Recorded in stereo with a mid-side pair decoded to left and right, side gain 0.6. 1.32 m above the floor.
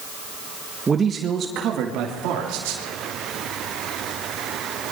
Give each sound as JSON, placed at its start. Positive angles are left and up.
{"t": 0.9, "sound": "a man speaking", "azimuth_deg": -25, "distance_m": 1.5}